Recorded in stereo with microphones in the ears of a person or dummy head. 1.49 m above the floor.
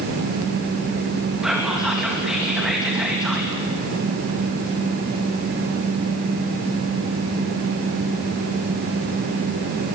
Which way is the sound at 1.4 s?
Centre (ahead or behind).